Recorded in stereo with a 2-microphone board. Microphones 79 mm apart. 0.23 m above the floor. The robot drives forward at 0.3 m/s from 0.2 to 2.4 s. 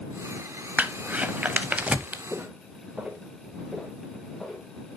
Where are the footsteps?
20° right (ahead or behind), 1.1 m; by 4.7 s centre (ahead or behind), 2.5 m.